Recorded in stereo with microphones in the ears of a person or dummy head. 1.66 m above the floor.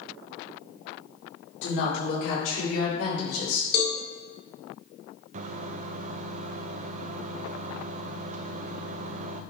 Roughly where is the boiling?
No boiling in this recording.